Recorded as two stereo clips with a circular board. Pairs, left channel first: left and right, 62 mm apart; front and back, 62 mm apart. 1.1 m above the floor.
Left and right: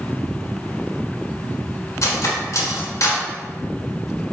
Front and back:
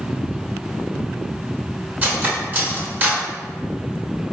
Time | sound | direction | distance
2.0 | cutlery clinking | 120° left | 0.8 m